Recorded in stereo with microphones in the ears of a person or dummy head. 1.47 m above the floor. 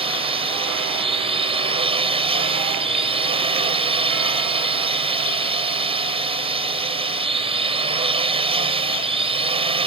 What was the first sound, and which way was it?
A drone, 30° right (ahead or behind).